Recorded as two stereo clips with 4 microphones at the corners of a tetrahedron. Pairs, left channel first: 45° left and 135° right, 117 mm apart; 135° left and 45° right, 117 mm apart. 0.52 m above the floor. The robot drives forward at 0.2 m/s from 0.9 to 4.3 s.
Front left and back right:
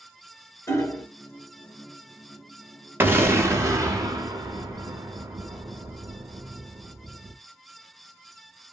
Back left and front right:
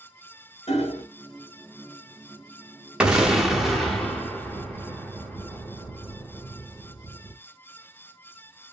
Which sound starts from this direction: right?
An explosion, at 3.0 s.